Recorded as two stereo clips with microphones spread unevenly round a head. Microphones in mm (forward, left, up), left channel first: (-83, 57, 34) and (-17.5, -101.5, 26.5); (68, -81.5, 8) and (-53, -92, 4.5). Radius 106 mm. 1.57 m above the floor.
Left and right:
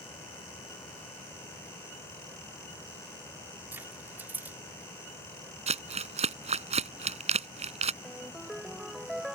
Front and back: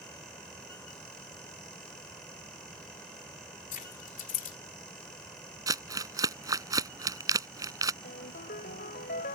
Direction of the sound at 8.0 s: 20° left.